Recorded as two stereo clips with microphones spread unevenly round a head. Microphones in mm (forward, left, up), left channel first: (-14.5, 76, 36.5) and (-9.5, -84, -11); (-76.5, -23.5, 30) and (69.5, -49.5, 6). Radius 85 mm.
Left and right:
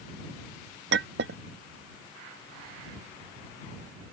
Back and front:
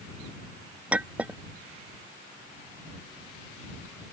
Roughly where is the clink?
Right.